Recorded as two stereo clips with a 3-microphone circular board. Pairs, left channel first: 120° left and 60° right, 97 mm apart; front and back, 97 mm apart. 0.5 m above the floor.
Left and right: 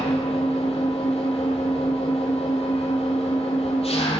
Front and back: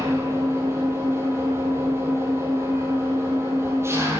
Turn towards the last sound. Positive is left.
turn(degrees=115)